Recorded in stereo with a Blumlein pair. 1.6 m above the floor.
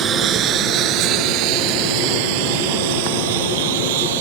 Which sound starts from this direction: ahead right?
A lawn mower, at 0.0 s.